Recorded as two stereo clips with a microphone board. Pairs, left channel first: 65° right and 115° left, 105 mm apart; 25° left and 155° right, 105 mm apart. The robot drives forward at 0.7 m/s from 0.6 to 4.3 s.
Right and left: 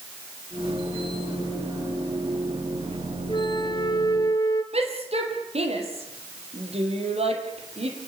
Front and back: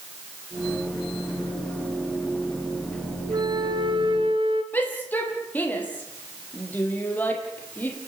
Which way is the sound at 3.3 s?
110° right.